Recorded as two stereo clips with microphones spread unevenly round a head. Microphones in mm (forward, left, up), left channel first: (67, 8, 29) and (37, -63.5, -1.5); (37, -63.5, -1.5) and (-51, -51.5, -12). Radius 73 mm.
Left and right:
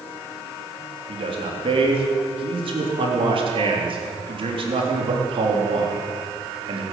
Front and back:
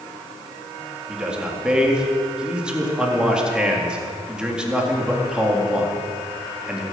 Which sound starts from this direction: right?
A man speaking, at 1.1 s.